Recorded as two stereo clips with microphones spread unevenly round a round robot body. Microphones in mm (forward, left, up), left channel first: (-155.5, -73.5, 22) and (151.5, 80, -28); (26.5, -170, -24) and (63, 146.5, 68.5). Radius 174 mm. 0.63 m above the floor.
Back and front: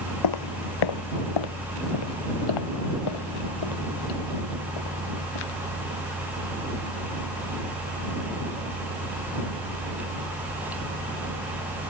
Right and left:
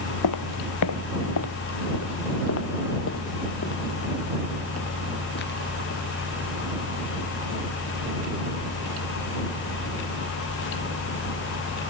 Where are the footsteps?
140° right; by 6.0 s 160° right.